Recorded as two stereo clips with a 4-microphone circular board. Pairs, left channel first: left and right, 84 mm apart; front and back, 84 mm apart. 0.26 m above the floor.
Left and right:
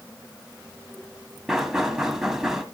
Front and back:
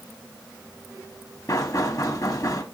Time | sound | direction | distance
1.5 | knocking | 10° right | 1.4 m